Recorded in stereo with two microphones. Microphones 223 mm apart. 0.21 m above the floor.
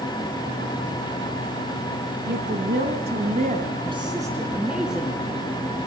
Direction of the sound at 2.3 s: 50° right (ahead or behind).